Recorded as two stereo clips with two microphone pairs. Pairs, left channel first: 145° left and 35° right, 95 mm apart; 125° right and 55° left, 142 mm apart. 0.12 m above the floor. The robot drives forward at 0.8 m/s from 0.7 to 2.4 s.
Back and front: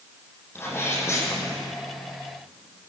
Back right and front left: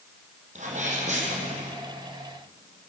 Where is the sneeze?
85° left, 6 m; by 1.8 s 95° left, 6 m.